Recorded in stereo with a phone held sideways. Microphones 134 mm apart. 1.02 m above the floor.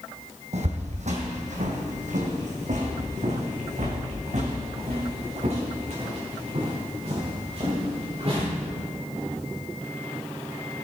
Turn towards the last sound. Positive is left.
turn(degrees=-50)  # may be behind; listen again after turning